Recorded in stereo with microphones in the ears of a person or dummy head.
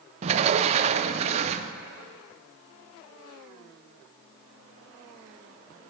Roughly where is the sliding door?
Right.